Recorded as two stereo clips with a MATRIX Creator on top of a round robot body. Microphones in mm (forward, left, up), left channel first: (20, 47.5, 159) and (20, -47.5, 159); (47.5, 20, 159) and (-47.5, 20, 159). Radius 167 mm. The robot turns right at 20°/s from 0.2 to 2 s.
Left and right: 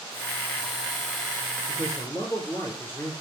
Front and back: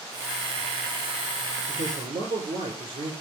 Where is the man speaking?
150° left, 4.5 m; by 3.1 s 155° left, 4.5 m.